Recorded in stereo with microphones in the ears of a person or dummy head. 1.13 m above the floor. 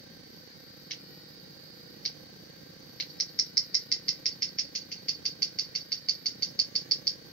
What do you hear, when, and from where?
0.9 s scissors: 10° left (ahead or behind), 2 m